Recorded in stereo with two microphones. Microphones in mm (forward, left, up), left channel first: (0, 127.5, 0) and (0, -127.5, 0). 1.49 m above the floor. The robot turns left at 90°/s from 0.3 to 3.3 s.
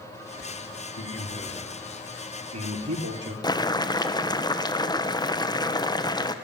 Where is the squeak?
I don't hear a squeak.